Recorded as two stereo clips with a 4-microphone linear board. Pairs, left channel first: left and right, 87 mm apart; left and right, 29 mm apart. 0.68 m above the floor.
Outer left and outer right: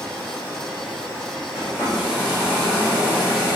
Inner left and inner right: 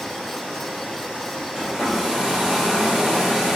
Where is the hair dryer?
15° right (ahead or behind), 1.3 m.